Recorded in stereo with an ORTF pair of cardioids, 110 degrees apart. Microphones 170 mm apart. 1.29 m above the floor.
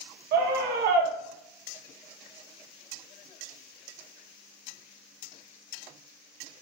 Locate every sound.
0.3 s a scream: 70° right, 1.5 m